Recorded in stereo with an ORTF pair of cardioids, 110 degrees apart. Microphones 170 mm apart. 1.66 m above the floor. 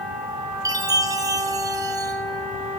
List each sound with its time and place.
0.7 s a chime: 20° right, 1.2 m